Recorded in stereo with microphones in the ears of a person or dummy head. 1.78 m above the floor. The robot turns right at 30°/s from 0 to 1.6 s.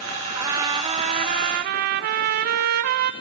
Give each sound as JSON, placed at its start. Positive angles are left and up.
{"t": 0.3, "sound": "a trumpet", "azimuth_deg": -165, "distance_m": 1.0}